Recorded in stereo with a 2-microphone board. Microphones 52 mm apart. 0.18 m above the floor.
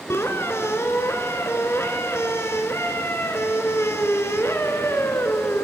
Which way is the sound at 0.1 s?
55° left (ahead or behind).